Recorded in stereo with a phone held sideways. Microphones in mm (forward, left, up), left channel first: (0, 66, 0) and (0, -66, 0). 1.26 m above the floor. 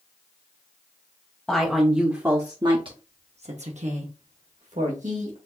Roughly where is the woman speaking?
Centre.